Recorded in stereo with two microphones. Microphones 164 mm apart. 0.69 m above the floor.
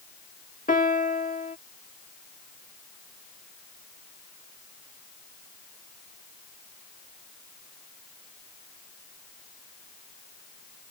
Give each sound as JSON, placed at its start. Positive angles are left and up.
{"t": 0.7, "sound": "a piano", "side_deg": 55}